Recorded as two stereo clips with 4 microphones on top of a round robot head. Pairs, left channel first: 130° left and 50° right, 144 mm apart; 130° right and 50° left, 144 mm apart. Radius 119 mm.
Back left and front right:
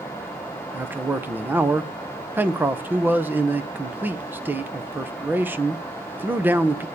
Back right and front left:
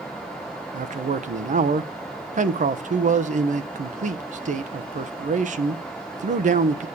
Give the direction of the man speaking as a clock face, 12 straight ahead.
11 o'clock.